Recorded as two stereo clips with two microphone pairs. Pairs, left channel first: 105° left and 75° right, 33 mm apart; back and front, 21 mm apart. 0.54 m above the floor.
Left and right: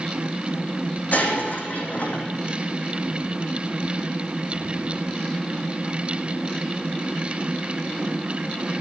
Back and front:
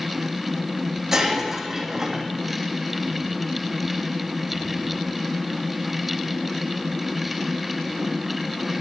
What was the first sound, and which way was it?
Breaking glass, 70° left.